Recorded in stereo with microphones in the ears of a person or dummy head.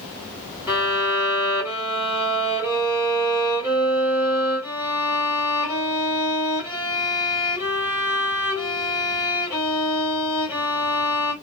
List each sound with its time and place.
0.7 s a violin: 10° right (ahead or behind), 1.6 m